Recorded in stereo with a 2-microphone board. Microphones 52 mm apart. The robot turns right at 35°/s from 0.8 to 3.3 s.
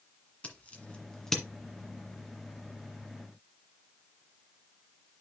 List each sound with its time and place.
0.4 s scissors: 30° left (ahead or behind), 1.8 m; by 1.4 s 5° left (ahead or behind), 1.8 m